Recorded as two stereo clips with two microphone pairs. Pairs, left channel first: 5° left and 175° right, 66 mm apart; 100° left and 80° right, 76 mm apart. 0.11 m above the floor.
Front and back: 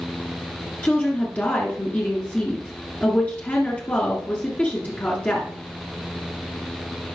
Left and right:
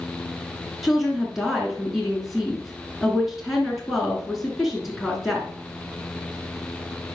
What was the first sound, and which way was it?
A woman speaking, straight ahead.